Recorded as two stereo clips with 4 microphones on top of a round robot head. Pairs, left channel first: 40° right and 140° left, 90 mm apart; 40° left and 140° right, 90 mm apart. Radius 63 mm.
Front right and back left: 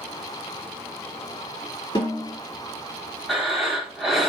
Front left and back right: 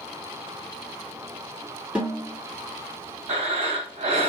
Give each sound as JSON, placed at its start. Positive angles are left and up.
{"t": 1.9, "sound": "a snare drum", "azimuth_deg": -65, "distance_m": 1.8}
{"t": 3.3, "sound": "breathing", "azimuth_deg": -135, "distance_m": 1.3}